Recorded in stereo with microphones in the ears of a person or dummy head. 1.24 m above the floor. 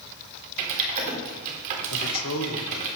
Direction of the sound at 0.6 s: 40° right (ahead or behind).